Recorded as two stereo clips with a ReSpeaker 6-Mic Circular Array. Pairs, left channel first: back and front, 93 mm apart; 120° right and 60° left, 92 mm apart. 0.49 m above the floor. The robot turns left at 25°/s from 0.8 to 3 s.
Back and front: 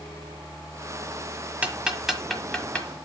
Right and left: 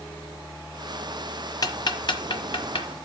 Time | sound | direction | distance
1.6 | ticking | 75° right | 1.2 m